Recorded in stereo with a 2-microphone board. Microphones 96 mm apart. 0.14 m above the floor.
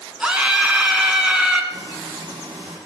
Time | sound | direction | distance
0.2 | a scream | 10° right (ahead or behind) | 1.3 m
1.7 | frying | 50° right (ahead or behind) | 4.5 m